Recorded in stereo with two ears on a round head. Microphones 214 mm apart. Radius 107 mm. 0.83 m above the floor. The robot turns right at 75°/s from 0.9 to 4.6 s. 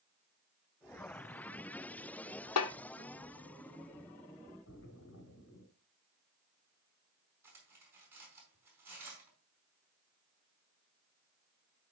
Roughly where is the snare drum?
Left.